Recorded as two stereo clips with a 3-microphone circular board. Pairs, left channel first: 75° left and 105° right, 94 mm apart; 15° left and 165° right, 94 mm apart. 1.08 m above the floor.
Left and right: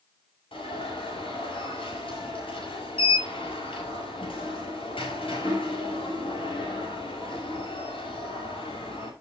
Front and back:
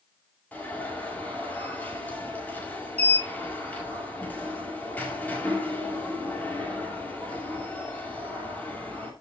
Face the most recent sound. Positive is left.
turn(degrees=90)